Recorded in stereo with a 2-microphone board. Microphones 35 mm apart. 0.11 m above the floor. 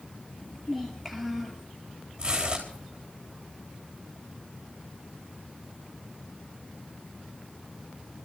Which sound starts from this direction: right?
Tearing paper, at 2.2 s.